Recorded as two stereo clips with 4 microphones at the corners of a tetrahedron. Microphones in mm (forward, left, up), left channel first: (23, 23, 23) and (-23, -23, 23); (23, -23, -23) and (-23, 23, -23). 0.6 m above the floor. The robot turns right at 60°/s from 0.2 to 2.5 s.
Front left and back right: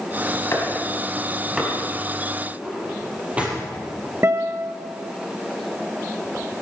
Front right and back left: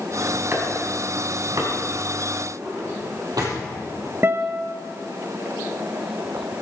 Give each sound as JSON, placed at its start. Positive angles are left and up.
{"t": 0.5, "sound": "chopping", "azimuth_deg": 85, "distance_m": 4.5}
{"t": 2.6, "sound": "a drawer", "azimuth_deg": 155, "distance_m": 5.0}
{"t": 4.2, "sound": "a guitar", "azimuth_deg": 180, "distance_m": 0.9}